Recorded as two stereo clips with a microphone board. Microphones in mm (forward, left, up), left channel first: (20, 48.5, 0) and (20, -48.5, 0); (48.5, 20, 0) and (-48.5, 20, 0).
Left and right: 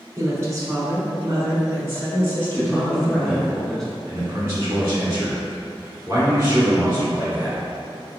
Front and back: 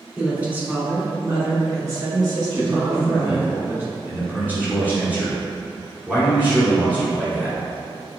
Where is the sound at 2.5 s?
165° left, 1.7 m.